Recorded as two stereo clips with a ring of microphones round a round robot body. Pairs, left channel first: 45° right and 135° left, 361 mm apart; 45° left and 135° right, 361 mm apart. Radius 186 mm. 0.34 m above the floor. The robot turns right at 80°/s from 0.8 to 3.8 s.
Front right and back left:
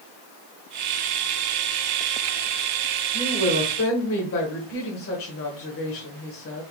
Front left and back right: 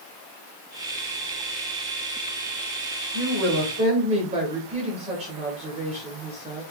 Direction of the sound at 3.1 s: 125° right.